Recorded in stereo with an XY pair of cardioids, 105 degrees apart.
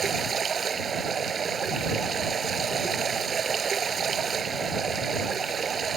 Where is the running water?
45° right.